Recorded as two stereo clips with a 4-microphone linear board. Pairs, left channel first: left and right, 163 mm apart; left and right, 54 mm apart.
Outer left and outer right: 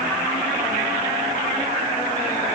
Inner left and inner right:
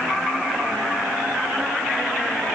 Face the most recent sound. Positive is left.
No sound to turn to.